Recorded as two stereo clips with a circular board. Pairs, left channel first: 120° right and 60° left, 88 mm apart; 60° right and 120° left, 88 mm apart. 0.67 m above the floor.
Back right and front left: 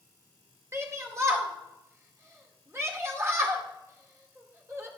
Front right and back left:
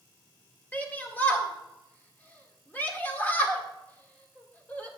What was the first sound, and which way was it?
A shout, 5° left.